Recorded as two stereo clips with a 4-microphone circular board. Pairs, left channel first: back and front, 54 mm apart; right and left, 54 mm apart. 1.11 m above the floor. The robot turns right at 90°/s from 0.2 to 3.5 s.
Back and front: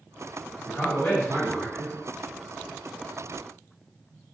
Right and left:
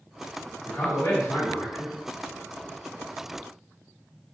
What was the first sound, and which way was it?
A man speaking, 160° right.